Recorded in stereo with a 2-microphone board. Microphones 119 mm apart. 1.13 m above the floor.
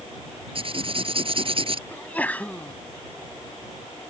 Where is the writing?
50° right (ahead or behind).